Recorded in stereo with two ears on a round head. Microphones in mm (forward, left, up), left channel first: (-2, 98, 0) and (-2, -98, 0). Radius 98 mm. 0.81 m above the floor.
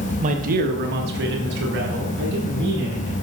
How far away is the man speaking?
About 0.7 m.